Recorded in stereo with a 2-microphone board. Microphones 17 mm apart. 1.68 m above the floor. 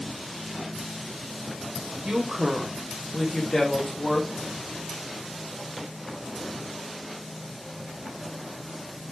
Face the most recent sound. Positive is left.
turn(degrees=35)  # may be behind; listen again after turning